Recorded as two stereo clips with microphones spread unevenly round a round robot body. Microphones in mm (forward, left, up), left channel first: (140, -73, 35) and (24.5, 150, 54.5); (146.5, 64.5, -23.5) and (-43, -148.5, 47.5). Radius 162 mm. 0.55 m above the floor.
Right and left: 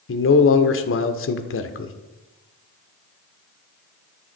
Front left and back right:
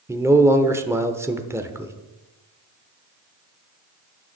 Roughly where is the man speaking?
Ahead right.